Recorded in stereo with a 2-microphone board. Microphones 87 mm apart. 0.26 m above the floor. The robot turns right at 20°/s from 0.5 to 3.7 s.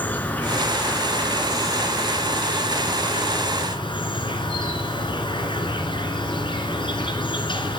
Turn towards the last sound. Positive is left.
turn(degrees=85)